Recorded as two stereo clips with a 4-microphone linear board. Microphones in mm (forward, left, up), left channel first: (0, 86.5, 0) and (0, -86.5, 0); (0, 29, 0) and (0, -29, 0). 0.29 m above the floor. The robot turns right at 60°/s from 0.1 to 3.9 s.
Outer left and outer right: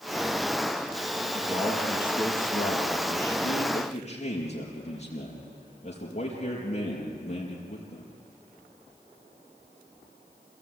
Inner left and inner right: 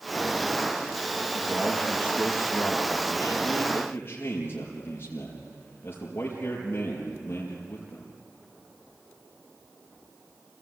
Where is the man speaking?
15° right, 4.5 m; by 8.1 s 140° left, 4.5 m.